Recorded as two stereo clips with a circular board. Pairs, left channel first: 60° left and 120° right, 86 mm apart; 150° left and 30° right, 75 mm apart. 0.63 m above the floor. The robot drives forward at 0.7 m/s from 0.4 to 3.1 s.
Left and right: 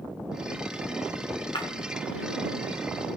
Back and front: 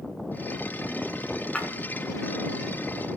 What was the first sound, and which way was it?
Breaking glass, 75° left.